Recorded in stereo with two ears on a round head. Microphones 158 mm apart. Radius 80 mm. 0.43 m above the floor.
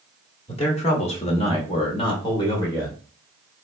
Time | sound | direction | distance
0.5 | a man speaking | 35° left (ahead or behind) | 1.1 m